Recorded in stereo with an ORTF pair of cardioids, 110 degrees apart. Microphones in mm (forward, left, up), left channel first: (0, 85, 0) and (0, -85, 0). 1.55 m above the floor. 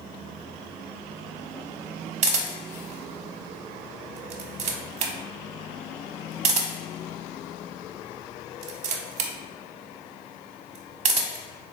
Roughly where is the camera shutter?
Ahead right.